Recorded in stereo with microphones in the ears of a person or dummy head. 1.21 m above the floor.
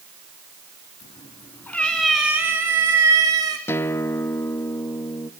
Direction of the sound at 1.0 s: 25° left (ahead or behind).